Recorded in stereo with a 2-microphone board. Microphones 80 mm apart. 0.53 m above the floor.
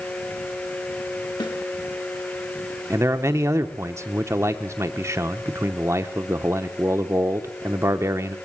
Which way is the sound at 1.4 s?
75° left (ahead or behind).